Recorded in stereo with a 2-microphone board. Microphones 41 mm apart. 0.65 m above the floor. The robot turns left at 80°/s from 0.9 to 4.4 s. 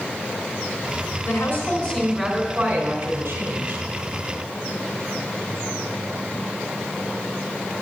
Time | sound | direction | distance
1.2 | a woman speaking | 85° left | 3 m